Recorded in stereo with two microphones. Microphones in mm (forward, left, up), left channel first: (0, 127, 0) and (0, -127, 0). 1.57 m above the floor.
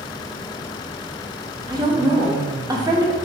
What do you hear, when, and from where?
1.7 s a woman speaking: 15° right (ahead or behind), 0.6 m